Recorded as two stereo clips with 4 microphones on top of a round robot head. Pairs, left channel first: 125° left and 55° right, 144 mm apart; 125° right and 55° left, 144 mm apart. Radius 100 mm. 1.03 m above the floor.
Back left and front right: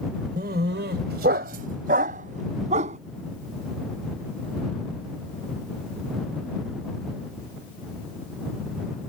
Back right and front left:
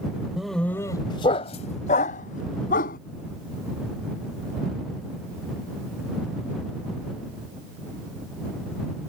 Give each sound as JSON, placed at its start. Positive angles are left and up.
{"t": 0.4, "sound": "a dog barking", "azimuth_deg": -30}